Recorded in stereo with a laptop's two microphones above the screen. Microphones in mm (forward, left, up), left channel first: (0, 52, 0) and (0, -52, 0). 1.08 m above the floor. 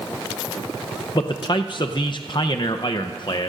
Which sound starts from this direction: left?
A man speaking, at 1.1 s.